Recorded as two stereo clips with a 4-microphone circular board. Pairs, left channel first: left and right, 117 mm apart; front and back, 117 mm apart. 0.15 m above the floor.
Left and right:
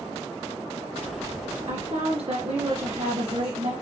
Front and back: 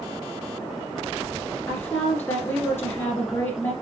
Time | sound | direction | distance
1.7 | a woman speaking | 65° right | 2.5 m